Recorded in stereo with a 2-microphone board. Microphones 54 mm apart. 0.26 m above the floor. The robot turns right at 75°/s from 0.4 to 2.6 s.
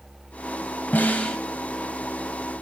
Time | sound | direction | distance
0.9 | a snare drum | 120° left | 0.8 m